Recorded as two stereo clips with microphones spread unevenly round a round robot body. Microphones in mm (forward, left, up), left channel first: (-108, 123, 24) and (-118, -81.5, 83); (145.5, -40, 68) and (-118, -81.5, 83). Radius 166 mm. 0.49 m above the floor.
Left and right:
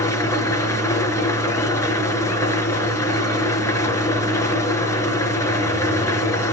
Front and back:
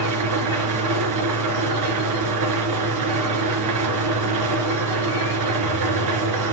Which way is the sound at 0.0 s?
165° left.